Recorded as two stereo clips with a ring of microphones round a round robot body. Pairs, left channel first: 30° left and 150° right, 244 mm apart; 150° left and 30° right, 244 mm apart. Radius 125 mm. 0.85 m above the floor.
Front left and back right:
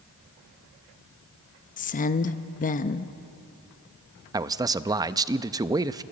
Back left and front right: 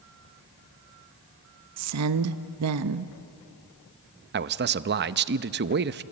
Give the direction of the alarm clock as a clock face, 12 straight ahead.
I don't hear an alarm clock.